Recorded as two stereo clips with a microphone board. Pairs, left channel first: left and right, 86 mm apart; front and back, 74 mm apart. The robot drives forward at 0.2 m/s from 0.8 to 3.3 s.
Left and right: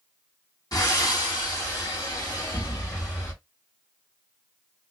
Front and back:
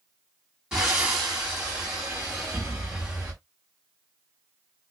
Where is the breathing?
105° left, 1.9 m; by 3.3 s 120° left, 2 m.